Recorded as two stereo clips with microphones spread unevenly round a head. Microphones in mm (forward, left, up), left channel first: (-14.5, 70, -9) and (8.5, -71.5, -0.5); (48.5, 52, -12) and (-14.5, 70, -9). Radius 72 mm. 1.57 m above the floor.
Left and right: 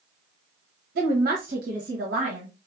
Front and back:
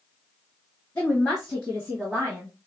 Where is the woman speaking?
90° right, 1.1 m; by 2.5 s 115° right, 2 m.